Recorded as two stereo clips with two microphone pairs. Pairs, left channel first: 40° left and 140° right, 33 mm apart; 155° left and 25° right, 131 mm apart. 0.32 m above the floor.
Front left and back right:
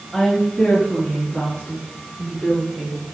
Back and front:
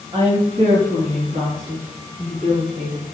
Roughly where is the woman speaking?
Ahead.